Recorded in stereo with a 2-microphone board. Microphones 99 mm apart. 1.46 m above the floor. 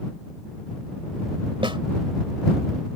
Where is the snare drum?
60° right (ahead or behind).